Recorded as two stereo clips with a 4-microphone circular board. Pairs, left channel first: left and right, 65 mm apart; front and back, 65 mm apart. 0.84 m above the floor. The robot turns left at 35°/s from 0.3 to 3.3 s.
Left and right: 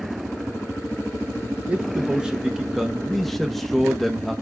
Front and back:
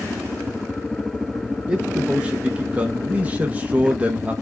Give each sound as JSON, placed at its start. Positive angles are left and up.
{"t": 1.7, "sound": "a man speaking", "azimuth_deg": -125, "distance_m": 0.7}